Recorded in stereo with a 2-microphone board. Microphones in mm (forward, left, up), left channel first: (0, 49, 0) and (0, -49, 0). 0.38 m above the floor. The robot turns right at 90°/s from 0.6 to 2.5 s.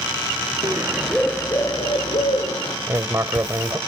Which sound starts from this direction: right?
Writing, at 2.9 s.